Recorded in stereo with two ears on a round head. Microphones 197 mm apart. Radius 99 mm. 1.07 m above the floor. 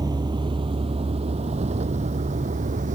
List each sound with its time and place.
0.0 s a vehicle: 20° right (ahead or behind); by 2.9 s 35° right (ahead or behind)